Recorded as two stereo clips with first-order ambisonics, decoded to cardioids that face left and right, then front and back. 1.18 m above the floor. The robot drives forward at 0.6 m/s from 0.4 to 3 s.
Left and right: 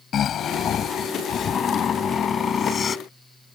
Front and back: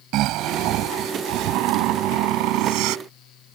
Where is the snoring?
145° left; by 3.0 s 160° left.